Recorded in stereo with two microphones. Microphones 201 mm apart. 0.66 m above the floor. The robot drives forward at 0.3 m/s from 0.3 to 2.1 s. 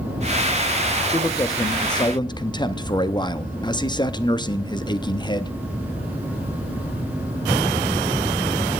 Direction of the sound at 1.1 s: 15° left (ahead or behind).